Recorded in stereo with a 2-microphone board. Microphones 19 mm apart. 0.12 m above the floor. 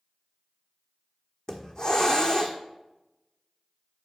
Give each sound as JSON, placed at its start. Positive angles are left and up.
{"t": 1.5, "sound": "a hiss", "side_deg": 40, "distance_m": 1.3}